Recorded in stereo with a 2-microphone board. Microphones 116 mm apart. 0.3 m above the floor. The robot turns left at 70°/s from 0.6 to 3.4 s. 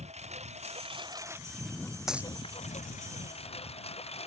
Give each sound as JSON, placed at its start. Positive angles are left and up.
{"t": 0.0, "sound": "a lawn mower", "side_deg": -70}
{"t": 2.1, "sound": "a dropped coin", "side_deg": -5}